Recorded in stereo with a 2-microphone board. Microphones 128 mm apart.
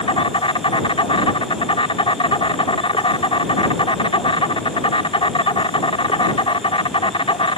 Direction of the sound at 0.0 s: 45° left (ahead or behind).